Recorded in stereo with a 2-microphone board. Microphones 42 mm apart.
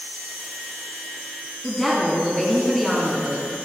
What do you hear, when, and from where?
1.6 s a woman speaking: 5° left (ahead or behind), 2 m